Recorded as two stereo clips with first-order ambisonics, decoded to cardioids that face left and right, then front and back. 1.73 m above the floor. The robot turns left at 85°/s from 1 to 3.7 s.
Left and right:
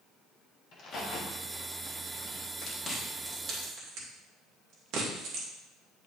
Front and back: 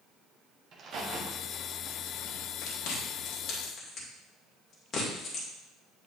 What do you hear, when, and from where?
0.7 s a crack: 135° left, 1.6 m; by 2.5 s 15° left, 1.6 m
2.6 s chewing: 30° left, 2.5 m; by 5.5 s 60° right, 2.5 m